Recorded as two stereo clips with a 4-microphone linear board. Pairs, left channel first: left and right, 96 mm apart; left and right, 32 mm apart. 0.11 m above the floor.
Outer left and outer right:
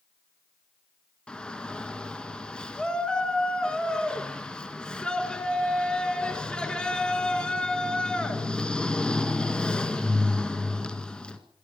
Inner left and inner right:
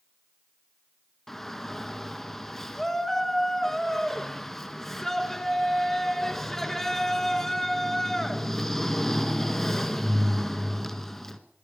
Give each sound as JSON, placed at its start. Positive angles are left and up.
{"t": 1.3, "sound": "a shout", "side_deg": 10, "distance_m": 1.7}